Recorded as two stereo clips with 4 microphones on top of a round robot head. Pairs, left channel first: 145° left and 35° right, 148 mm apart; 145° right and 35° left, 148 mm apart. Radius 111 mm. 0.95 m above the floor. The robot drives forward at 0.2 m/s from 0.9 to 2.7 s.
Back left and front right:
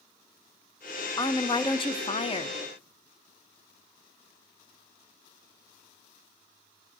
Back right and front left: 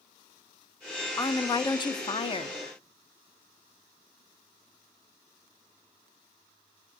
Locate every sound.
1.2 s a woman speaking: 170° left, 0.5 m; by 2.6 s 175° left, 0.7 m